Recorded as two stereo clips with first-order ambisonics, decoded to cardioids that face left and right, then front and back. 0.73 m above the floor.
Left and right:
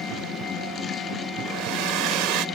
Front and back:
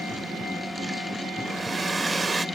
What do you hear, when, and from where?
1.4 s a hair dryer: 105° right